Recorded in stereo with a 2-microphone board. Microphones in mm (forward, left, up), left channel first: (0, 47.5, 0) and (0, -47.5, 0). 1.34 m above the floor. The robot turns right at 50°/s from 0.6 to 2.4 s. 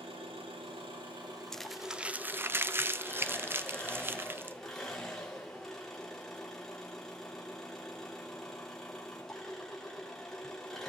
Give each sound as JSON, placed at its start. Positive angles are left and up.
{"t": 0.0, "sound": "an engine running", "azimuth_deg": -85, "distance_m": 3.0}
{"t": 1.5, "sound": "crumpling", "side_deg": 5, "distance_m": 0.5}